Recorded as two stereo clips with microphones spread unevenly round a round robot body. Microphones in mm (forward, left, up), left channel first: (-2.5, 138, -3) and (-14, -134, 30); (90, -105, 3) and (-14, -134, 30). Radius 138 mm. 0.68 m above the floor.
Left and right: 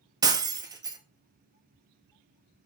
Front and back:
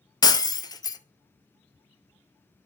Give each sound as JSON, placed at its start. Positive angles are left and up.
{"t": 0.2, "sound": "breaking glass", "azimuth_deg": -35, "distance_m": 0.7}